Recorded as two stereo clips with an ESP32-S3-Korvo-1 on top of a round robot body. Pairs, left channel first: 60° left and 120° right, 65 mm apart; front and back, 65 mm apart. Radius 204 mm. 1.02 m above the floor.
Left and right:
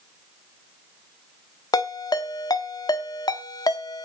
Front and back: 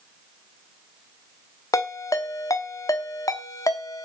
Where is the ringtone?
40° left, 1.0 m.